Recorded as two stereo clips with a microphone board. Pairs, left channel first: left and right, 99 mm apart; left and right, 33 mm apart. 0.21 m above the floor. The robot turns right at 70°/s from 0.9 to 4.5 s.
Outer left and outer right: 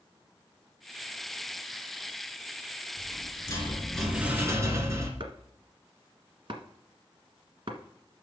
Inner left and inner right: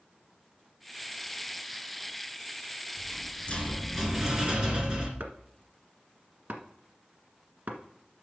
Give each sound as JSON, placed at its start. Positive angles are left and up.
{"t": 3.0, "sound": "a rattle", "azimuth_deg": 105, "distance_m": 2.0}
{"t": 5.2, "sound": "chopping", "side_deg": -60, "distance_m": 1.5}